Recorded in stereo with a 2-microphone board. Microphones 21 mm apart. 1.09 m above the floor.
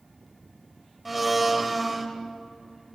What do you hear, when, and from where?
1.1 s a blender: centre (ahead or behind), 1.7 m